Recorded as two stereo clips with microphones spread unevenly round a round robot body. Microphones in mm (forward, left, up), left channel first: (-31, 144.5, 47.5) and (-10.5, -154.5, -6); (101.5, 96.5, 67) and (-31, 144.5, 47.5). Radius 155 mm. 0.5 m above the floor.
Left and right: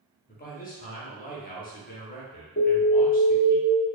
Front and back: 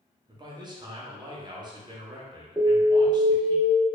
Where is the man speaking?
155° left, 0.8 m.